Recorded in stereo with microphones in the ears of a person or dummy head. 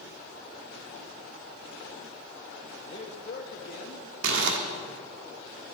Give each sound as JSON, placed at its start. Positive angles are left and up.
{"t": 2.9, "sound": "a man speaking", "side_deg": 35, "distance_m": 1.2}
{"t": 4.2, "sound": "crumpling", "side_deg": -70, "distance_m": 1.6}